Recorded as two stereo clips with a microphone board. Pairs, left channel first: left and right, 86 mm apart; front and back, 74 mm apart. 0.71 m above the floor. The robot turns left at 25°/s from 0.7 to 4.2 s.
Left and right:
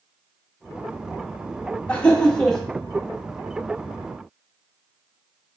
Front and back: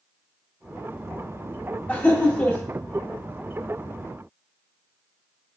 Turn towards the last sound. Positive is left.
turn(degrees=-25)